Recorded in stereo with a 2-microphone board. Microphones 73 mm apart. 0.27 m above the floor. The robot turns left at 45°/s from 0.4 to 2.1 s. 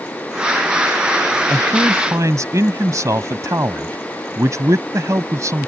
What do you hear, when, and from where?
1.5 s a man speaking: 45° right (ahead or behind); by 5.7 s 50° right (ahead or behind)